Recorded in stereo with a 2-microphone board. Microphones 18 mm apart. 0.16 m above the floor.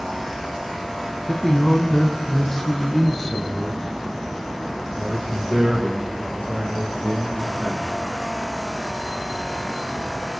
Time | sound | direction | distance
1.3 | a man speaking | 30° left (ahead or behind) | 1.3 m